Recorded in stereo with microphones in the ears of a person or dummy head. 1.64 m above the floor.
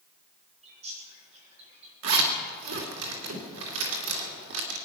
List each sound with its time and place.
0.6 s a bird: 35° right (ahead or behind), 5 m
2.0 s a zipper: 70° right (ahead or behind), 2.5 m